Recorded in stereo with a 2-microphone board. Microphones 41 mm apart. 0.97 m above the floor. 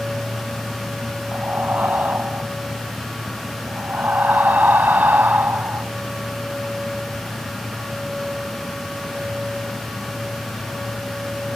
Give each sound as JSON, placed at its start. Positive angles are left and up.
{"t": 1.3, "sound": "breathing", "side_deg": -55}